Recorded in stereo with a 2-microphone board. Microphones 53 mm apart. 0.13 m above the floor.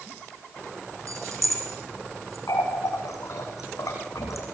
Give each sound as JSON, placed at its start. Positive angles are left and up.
{"t": 1.1, "sound": "keys jangling", "side_deg": -75, "distance_m": 3.5}
{"t": 2.5, "sound": "a running tap", "side_deg": 80, "distance_m": 5.5}